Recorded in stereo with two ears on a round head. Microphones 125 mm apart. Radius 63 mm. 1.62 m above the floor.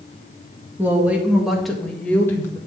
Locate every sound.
0.8 s a woman speaking: 15° right (ahead or behind), 2 m; by 2.6 s 20° left (ahead or behind), 1.9 m